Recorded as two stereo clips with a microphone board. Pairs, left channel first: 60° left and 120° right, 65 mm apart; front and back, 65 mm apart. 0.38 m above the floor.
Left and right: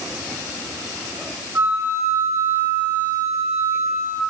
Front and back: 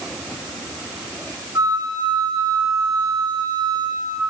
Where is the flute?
175° right, 1.1 m.